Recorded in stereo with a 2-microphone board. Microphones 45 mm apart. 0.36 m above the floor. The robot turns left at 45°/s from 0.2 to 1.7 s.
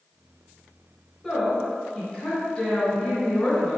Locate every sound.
1.2 s a woman speaking: 10° left (ahead or behind), 1.7 m; by 3.8 s 20° left (ahead or behind), 1.7 m